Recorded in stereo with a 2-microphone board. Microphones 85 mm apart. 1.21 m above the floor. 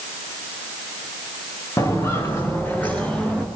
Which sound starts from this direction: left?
Footsteps, at 1.8 s.